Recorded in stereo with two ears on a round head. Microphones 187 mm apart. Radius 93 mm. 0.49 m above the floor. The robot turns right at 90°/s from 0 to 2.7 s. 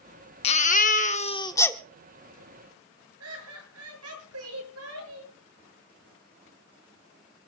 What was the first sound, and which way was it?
A baby crying, 50° left.